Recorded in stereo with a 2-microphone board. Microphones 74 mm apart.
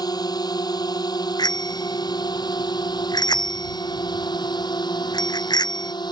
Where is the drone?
60° left (ahead or behind); by 6.1 s 70° left (ahead or behind).